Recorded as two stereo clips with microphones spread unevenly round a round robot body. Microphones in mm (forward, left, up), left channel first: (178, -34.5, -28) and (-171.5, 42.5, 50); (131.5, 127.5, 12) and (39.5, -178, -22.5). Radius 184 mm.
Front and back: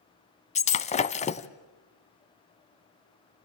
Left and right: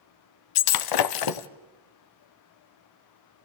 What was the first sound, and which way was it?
Breaking glass, 60° left.